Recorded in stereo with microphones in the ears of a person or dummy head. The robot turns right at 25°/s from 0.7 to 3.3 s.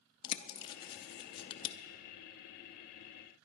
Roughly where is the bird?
Left.